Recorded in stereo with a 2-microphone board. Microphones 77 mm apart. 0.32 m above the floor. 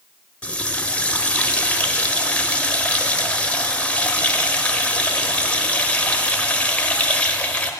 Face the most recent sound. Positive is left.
turn(degrees=15)  # may be behind; listen again after turning